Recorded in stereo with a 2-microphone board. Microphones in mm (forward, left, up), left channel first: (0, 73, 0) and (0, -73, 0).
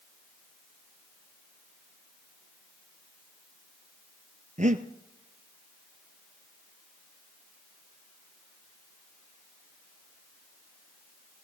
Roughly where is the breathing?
Right.